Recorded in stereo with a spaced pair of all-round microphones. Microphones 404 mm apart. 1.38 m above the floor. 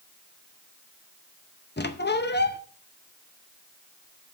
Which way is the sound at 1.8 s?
25° left (ahead or behind).